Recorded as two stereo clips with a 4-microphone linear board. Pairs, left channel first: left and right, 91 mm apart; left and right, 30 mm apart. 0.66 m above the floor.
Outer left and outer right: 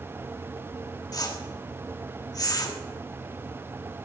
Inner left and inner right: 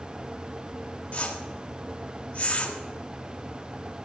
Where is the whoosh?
40° left (ahead or behind), 1.3 m.